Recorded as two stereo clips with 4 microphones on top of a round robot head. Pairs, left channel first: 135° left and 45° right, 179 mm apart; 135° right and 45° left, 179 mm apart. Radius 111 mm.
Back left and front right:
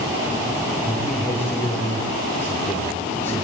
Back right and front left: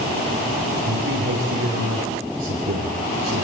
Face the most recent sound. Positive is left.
turn(degrees=55)